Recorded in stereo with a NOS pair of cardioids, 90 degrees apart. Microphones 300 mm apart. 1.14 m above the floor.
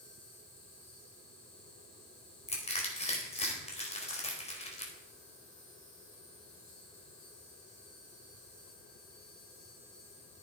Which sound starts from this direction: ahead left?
An insect, at 0.0 s.